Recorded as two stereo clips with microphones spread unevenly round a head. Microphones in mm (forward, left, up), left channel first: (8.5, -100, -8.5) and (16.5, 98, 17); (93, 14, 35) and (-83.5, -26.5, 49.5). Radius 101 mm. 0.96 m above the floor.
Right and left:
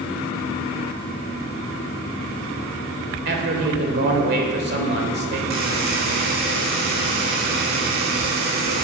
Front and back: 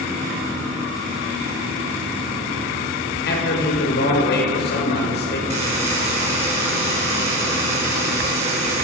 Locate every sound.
3.2 s a man speaking: 50° left, 3.5 m
5.5 s a buzzer: 135° left, 4.5 m